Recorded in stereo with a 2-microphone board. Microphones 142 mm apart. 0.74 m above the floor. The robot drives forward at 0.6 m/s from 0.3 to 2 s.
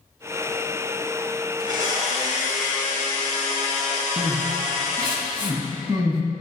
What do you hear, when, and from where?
1.6 s a blender: 60° right (ahead or behind), 1.9 m; by 5.2 s 55° right (ahead or behind), 1.9 m
4.2 s crying: 35° right (ahead or behind), 1.0 m